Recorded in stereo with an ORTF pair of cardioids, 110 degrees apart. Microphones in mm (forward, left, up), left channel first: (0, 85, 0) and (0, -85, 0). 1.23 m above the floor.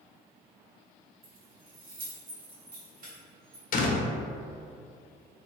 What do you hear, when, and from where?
1.2 s keys jangling: 60° right, 1.2 m; by 3.6 s 55° right, 2.5 m
3.7 s a door slam: 55° left, 0.8 m